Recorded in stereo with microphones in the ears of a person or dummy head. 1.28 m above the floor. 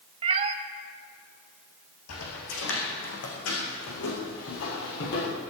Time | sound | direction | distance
0.2 | a cat meowing | 25° right (ahead or behind) | 0.7 m
2.1 | footsteps | 75° left (ahead or behind) | 4.5 m